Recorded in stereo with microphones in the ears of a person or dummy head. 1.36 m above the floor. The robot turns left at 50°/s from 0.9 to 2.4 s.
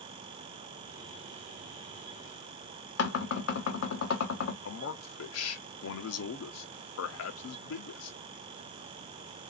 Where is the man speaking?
80° left, 0.7 m.